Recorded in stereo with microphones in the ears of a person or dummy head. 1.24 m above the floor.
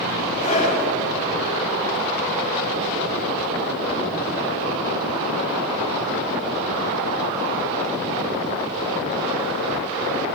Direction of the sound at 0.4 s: 35° left (ahead or behind).